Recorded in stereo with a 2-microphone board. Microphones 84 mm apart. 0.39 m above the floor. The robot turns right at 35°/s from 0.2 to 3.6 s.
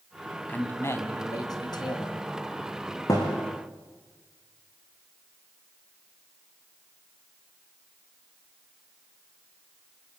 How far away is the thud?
About 5.5 m.